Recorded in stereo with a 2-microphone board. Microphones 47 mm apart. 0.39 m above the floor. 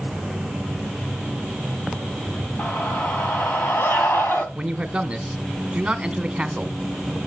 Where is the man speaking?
20° right (ahead or behind), 0.9 m.